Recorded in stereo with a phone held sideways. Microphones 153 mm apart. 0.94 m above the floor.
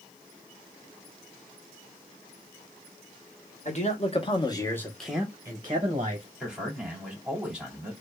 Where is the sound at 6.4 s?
5° right (ahead or behind), 2 m.